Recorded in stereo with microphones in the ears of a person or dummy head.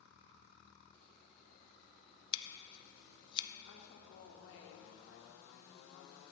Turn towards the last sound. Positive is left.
turn(degrees=70)  # may be behind; listen again after turning